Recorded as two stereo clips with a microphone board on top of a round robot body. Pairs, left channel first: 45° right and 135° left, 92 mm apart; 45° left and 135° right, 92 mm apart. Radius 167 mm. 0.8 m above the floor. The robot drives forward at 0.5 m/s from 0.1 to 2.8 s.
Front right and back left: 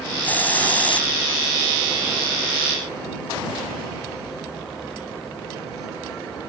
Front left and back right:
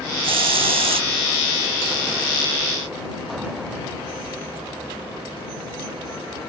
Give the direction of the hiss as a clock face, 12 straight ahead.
4 o'clock.